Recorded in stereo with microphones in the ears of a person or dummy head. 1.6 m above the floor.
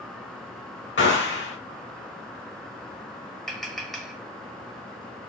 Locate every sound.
1.0 s a gunshot: 50° left (ahead or behind), 0.9 m
3.5 s tapping: 5° left (ahead or behind), 1.1 m